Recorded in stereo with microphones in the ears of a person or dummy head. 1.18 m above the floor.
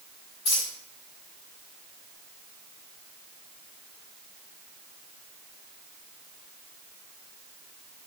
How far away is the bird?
No bird in this recording.